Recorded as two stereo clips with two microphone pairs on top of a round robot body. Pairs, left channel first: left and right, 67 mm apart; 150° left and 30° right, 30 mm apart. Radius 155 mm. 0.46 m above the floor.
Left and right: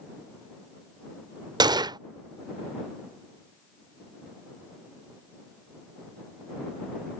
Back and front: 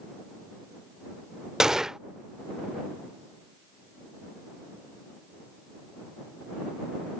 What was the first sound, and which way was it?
A gunshot, 100° right.